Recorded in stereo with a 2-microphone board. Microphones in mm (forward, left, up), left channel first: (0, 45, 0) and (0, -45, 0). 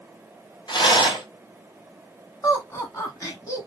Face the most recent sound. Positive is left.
turn(degrees=35)  # may be behind; listen again after turning